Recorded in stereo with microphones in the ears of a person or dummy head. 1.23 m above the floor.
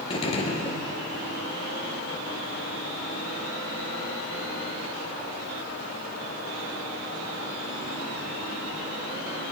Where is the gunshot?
35° left (ahead or behind), 1.7 m.